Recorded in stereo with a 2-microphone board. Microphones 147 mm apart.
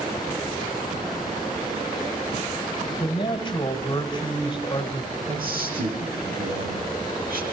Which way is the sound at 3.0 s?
35° left (ahead or behind).